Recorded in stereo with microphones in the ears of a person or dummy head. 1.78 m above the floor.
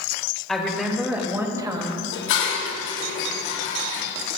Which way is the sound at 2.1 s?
70° left (ahead or behind).